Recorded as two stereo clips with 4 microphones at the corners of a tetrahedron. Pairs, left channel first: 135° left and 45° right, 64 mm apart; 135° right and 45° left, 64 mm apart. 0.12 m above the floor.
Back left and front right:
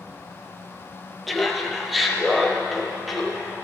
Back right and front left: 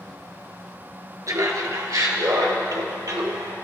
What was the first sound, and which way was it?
Laughter, 45° left.